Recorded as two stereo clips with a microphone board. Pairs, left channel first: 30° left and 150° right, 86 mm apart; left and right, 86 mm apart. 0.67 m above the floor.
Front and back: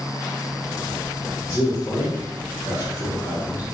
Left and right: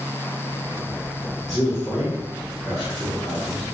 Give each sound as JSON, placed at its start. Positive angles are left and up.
{"t": 1.5, "sound": "a man speaking", "azimuth_deg": 15, "distance_m": 0.9}